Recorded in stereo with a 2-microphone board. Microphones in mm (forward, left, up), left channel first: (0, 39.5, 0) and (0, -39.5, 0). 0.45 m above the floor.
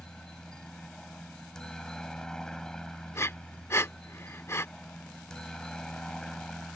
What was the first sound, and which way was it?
A helicopter, 10° left (ahead or behind).